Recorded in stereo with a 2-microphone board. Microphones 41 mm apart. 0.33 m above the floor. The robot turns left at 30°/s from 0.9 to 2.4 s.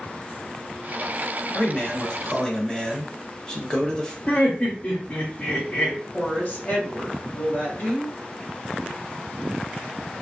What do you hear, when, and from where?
1.5 s a man speaking: 30° left (ahead or behind), 1.0 m; by 4.2 s 15° left (ahead or behind), 1.0 m
4.3 s laughter: 35° left (ahead or behind), 1.0 m
6.1 s a woman speaking: 50° left (ahead or behind), 1.8 m